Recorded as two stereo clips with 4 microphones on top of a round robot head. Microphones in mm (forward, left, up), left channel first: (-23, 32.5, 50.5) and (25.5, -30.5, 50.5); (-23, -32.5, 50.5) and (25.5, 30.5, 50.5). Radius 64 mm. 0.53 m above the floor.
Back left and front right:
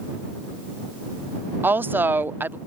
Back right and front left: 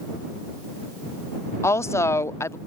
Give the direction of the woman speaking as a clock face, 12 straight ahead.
3 o'clock.